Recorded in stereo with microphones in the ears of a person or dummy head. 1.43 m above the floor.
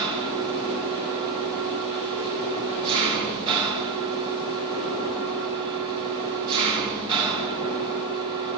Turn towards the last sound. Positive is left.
turn(degrees=-25)  # may be behind; listen again after turning